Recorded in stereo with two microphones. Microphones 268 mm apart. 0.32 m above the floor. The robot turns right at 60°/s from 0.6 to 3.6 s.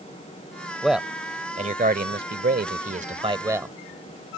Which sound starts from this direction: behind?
A man speaking, at 0.8 s.